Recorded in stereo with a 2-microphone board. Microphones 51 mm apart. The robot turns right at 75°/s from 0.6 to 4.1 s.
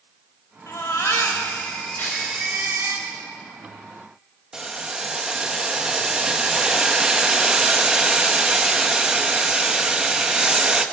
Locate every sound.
0.7 s a baby crying: 65° left, 4 m; by 3.0 s 120° right, 4 m
2.0 s tearing paper: 45° left (ahead or behind), 9.5 m; by 2.3 s 25° left (ahead or behind), 9.5 m
4.5 s boiling: 15° right (ahead or behind), 1.4 m